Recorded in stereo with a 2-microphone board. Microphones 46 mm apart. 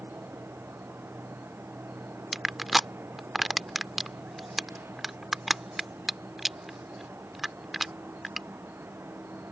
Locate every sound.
0.0 s an insect: 60° right (ahead or behind)
2.3 s crushing: 5° right (ahead or behind)